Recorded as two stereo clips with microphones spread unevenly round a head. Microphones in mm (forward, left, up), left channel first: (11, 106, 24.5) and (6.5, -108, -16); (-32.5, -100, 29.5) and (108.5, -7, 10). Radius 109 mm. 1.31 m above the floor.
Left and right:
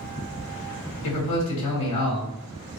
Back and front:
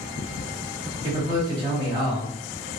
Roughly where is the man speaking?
Left.